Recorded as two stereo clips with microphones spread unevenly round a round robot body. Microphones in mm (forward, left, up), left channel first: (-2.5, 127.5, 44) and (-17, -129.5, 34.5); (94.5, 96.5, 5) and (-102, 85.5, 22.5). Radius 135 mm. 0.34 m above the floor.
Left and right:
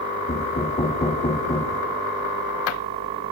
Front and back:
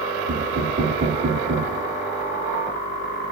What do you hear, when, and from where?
0.3 s knocking: 155° left, 3 m